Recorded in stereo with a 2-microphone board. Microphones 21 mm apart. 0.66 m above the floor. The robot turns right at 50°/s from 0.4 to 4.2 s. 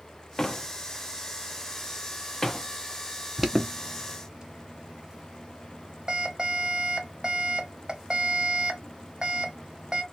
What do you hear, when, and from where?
0.4 s a door slam: 25° left (ahead or behind), 0.6 m; by 2.7 s 15° left (ahead or behind), 0.6 m
3.4 s an alarm: 10° right (ahead or behind), 0.7 m; by 10.0 s 40° right (ahead or behind), 0.7 m